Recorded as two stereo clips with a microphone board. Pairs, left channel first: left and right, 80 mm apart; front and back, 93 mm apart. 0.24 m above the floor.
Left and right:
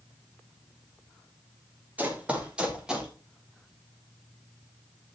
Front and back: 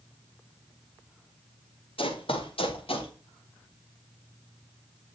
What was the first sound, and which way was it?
Running footsteps, 15° right.